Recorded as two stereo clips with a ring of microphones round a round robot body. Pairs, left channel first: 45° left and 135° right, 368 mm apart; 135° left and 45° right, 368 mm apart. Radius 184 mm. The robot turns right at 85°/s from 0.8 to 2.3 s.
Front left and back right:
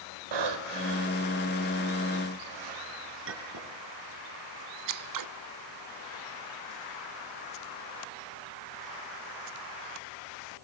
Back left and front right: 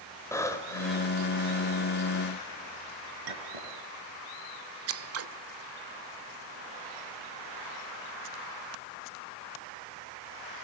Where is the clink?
80° right, 5 m.